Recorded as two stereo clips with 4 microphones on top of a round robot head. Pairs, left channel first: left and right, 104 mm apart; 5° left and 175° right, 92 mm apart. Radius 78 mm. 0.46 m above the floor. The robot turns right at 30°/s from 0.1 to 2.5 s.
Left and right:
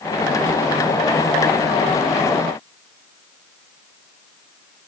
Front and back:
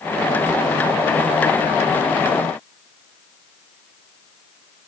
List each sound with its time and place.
Only background noise.